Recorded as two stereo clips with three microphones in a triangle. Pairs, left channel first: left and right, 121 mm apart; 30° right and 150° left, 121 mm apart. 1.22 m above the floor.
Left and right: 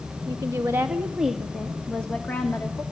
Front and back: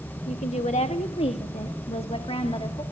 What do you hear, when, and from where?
0.3 s a woman speaking: 35° right, 1.4 m; by 2.8 s 20° left, 2.5 m